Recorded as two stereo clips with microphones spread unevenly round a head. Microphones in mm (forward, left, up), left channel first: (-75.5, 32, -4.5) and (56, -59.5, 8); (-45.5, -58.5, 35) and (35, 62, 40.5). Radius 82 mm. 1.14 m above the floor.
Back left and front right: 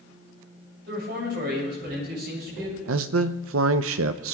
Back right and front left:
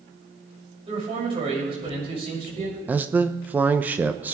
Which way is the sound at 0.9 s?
Straight ahead.